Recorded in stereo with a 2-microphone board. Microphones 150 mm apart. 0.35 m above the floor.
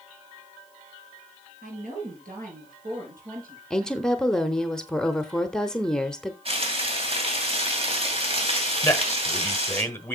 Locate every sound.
1.6 s a woman speaking: 75° right (ahead or behind), 5.5 m; by 3.6 s 80° right, 5.5 m
3.7 s a woman speaking: 5° left (ahead or behind), 0.8 m
6.5 s frying: 45° right (ahead or behind), 2.5 m
8.8 s a man speaking: 15° left (ahead or behind), 1.2 m